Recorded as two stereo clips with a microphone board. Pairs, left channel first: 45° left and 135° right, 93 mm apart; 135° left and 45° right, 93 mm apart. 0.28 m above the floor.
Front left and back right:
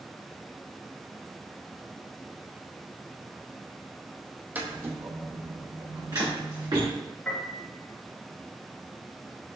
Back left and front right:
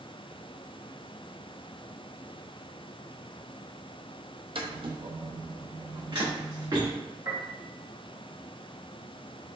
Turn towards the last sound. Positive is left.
turn(degrees=-25)